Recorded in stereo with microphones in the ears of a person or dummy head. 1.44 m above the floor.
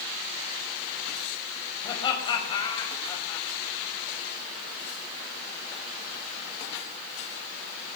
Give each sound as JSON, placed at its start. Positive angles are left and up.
{"t": 1.8, "sound": "laughter", "side_deg": 25, "distance_m": 6.0}